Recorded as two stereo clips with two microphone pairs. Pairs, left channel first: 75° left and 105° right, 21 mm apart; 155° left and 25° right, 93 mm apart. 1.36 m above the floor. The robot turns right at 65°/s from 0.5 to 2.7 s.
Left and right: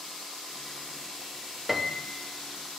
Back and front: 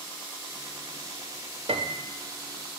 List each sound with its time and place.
1.7 s a piano: 25° right, 0.7 m; by 2.2 s 10° left, 0.7 m